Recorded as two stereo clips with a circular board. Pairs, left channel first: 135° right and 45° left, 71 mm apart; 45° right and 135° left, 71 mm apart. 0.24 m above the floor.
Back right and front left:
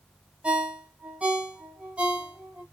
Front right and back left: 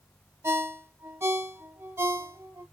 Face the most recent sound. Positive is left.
turn(degrees=110)